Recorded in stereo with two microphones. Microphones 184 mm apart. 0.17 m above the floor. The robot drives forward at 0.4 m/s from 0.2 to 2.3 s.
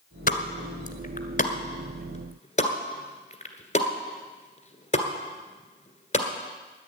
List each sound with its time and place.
0.3 s a pop: 55° left (ahead or behind), 1.3 m; by 6.3 s 40° left (ahead or behind), 1.6 m